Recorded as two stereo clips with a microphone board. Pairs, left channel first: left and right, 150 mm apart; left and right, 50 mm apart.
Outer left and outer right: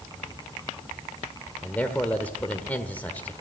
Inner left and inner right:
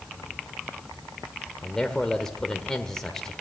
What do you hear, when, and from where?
1.6 s a man speaking: 10° left (ahead or behind), 1.4 m